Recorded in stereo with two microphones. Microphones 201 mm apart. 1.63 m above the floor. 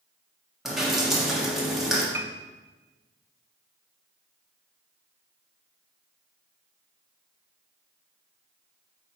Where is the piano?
15° right (ahead or behind), 0.6 m.